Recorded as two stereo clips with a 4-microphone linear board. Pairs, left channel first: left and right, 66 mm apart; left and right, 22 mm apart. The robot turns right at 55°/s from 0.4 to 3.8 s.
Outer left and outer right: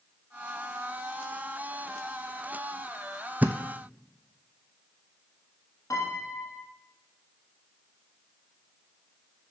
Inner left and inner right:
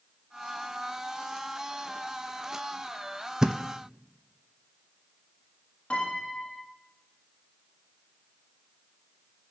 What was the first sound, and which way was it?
A thud, 25° right (ahead or behind).